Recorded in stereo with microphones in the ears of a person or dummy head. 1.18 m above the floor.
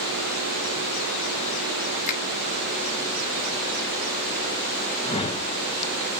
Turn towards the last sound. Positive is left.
turn(degrees=30)  # may be behind; listen again after turning